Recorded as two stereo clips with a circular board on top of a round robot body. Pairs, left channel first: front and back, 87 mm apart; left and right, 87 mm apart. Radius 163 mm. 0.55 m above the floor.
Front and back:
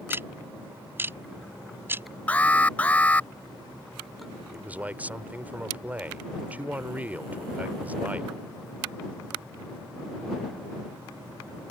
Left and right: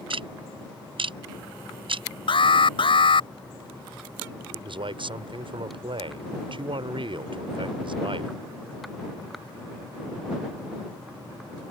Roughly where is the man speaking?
Right.